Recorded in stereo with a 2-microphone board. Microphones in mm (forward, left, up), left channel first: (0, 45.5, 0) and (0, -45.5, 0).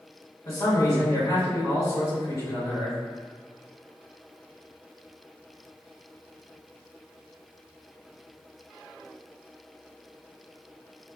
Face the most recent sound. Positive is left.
turn(degrees=45)  # may be behind; listen again after turning